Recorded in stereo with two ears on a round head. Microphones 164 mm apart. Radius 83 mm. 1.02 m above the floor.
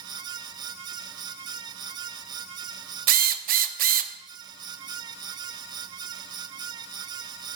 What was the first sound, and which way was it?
A drill, 50° right (ahead or behind).